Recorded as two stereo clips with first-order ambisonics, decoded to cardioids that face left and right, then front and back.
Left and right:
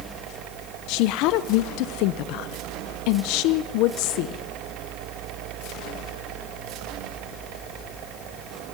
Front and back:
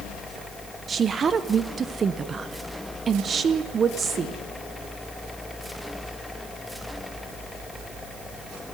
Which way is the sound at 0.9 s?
110° left.